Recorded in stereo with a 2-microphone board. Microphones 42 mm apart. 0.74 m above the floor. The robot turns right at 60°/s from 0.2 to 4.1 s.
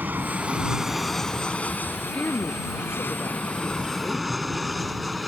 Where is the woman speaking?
35° left; by 4.3 s 155° left.